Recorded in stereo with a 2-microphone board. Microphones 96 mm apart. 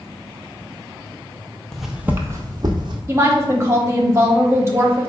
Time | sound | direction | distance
1.7 | footsteps | 5° left (ahead or behind) | 0.6 m
3.1 | a woman speaking | 25° right (ahead or behind) | 0.9 m